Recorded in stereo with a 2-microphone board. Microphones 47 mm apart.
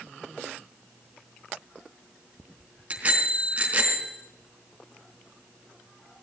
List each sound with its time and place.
2.9 s a bicycle bell: 30° right (ahead or behind), 3.5 m